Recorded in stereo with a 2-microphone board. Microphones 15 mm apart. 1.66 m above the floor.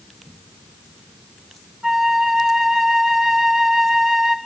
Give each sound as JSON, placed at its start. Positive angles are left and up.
{"t": 1.8, "sound": "a flute", "side_deg": -60, "distance_m": 5.5}